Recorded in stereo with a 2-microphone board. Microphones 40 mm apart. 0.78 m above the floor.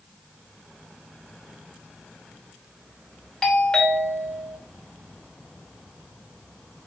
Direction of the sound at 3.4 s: 15° left (ahead or behind).